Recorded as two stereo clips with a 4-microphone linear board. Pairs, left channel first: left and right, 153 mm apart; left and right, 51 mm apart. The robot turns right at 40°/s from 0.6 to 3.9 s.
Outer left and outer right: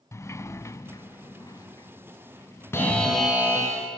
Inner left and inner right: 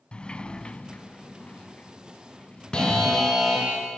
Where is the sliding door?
20° left (ahead or behind), 0.6 m; by 3.3 s 5° left (ahead or behind), 0.6 m.